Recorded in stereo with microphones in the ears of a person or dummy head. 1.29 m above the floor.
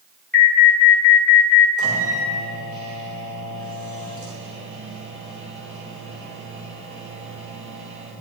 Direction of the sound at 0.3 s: 10° left (ahead or behind).